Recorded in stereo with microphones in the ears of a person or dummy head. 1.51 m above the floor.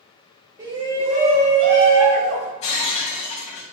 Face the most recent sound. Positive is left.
turn(degrees=40)  # may be behind; listen again after turning